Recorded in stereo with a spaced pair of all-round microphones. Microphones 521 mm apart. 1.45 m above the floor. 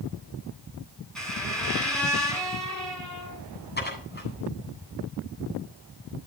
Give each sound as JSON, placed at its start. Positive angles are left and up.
{"t": 1.1, "sound": "a squeak", "side_deg": 0, "distance_m": 8.0}
{"t": 3.8, "sound": "dishes clattering", "side_deg": 20, "distance_m": 8.5}